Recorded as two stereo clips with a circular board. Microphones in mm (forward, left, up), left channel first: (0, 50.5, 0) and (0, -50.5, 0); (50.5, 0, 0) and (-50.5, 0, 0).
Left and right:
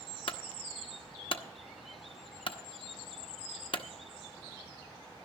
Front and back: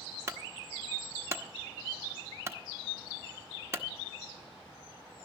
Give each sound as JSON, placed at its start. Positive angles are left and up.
{"t": 0.3, "sound": "a clunk", "azimuth_deg": 120, "distance_m": 0.9}